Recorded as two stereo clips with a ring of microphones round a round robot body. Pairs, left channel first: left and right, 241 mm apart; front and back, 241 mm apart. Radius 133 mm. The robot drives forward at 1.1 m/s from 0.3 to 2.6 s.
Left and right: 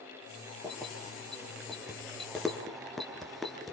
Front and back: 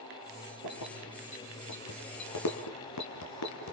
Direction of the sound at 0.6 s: Straight ahead.